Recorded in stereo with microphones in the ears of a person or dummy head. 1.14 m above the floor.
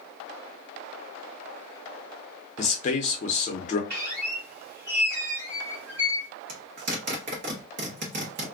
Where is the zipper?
55° right (ahead or behind), 0.9 m.